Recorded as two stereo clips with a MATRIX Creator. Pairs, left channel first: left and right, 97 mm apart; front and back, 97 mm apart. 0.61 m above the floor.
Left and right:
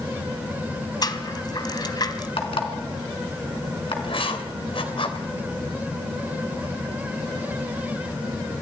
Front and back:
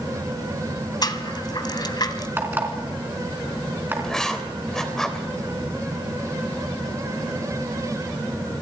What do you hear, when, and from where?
1.0 s a rattle: 45° left, 1.6 m
2.4 s an alarm clock: 110° left, 4 m
4.0 s writing: 85° left, 3 m